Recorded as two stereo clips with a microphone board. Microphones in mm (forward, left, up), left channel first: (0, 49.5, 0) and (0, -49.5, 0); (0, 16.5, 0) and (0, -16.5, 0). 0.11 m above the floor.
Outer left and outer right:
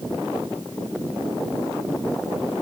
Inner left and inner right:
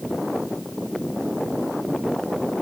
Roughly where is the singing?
No singing in this recording.